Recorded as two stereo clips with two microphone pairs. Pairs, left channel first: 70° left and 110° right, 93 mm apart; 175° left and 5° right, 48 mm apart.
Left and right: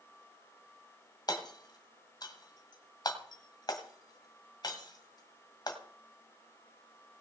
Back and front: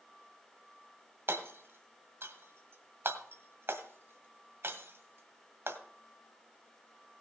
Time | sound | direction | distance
1.3 | hammering | 30° left | 1.7 m